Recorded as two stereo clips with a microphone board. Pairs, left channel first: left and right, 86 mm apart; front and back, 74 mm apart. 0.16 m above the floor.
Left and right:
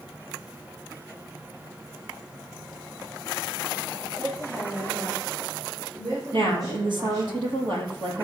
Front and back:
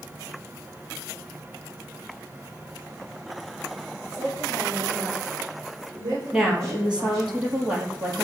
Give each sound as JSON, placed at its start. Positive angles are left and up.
{"t": 4.1, "sound": "a woman speaking", "azimuth_deg": -130, "distance_m": 7.0}
{"t": 6.3, "sound": "a woman speaking", "azimuth_deg": -105, "distance_m": 4.5}